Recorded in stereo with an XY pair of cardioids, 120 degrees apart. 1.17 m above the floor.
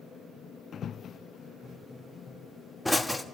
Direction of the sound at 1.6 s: 10° left.